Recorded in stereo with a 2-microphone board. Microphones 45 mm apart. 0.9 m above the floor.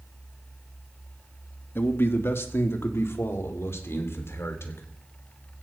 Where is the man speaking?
55° left (ahead or behind), 1.6 m; by 4.8 s 70° left (ahead or behind), 3.5 m.